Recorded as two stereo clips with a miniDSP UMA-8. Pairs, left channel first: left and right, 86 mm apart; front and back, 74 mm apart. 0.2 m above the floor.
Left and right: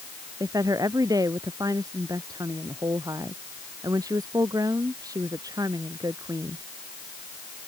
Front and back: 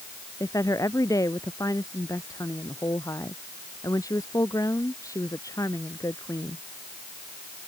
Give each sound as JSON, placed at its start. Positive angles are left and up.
{"t": 0.4, "sound": "a woman speaking", "azimuth_deg": -45}